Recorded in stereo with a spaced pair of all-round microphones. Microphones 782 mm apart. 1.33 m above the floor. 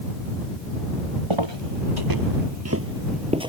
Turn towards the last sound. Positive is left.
turn(degrees=-5)  # may be behind; listen again after turning